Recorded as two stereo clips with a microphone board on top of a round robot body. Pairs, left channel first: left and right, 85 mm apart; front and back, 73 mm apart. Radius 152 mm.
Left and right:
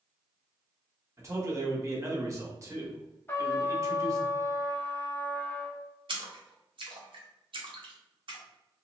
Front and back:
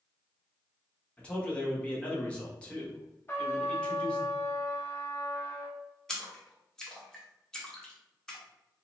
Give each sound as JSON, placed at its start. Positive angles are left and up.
{"t": 1.2, "sound": "a man speaking", "azimuth_deg": -65, "distance_m": 1.2}
{"t": 3.3, "sound": "a trumpet", "azimuth_deg": 40, "distance_m": 1.0}
{"t": 6.1, "sound": "a splash", "azimuth_deg": -85, "distance_m": 0.9}